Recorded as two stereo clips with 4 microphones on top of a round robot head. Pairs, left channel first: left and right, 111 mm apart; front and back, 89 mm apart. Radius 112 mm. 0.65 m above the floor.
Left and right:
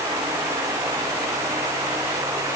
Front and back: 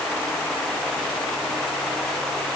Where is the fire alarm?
I don't hear a fire alarm.